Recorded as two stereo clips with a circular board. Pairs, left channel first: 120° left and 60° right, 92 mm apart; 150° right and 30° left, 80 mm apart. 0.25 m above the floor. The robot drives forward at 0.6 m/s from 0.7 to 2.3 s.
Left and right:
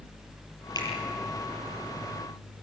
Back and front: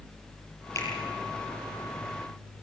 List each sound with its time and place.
0.8 s a finger snap: 160° left, 6 m